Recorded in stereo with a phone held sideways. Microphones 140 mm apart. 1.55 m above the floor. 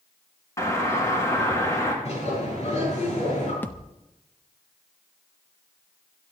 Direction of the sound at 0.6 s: 25° left (ahead or behind).